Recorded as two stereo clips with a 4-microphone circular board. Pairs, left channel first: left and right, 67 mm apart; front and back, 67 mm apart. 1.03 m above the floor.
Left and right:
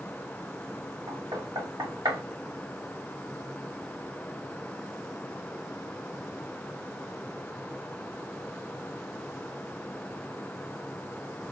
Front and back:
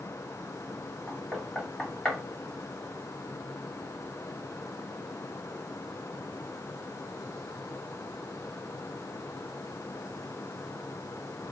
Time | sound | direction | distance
1.1 | knocking | 80° right | 2 m